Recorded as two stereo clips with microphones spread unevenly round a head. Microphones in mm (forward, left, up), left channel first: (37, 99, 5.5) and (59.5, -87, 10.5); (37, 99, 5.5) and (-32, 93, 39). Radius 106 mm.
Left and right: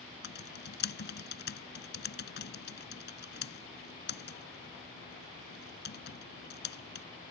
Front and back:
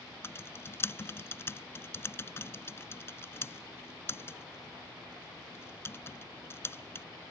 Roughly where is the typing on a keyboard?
Ahead left.